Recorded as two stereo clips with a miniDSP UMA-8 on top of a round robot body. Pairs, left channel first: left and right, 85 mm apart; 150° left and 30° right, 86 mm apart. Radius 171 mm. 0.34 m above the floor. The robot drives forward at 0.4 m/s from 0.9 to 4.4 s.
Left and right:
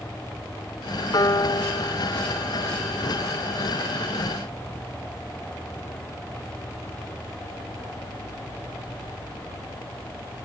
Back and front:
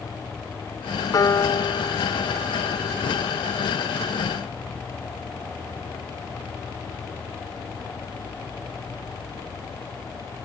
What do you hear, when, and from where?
1.1 s a piano: 115° left; by 4.2 s 155° left